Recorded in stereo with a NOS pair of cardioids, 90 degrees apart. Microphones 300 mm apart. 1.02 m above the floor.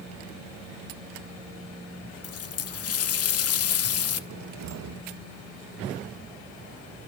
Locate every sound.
2.2 s a running tap: 50° left, 1.1 m
4.3 s a cupboard door: 65° right, 1.0 m